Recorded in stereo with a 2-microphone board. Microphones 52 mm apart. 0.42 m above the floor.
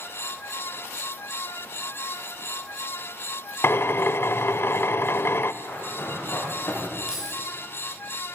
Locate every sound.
3.6 s a drill: 55° left (ahead or behind), 0.6 m
5.6 s running footsteps: 45° left (ahead or behind), 8.5 m; by 7.0 s 30° left (ahead or behind), 9.5 m
7.1 s keys jangling: 15° right (ahead or behind), 7.5 m